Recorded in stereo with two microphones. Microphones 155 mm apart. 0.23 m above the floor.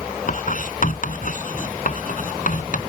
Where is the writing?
60° left (ahead or behind).